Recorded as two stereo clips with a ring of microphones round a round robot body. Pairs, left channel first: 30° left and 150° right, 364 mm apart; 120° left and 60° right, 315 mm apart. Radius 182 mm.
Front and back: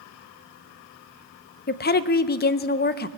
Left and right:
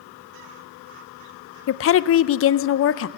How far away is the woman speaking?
About 0.5 m.